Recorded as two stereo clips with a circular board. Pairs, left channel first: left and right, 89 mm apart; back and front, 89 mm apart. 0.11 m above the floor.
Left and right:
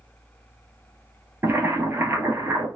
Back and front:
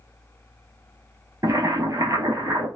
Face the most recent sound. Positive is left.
turn(degrees=-35)